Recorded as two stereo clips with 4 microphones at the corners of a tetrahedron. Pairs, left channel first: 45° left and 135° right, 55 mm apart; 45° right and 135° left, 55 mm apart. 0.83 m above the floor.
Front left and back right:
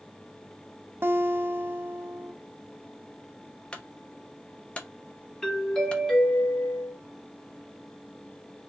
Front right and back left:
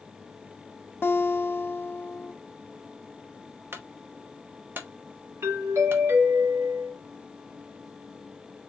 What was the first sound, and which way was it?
A guitar, 90° right.